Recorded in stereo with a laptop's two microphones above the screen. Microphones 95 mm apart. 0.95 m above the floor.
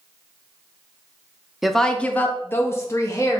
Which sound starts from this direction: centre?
A woman speaking, at 1.6 s.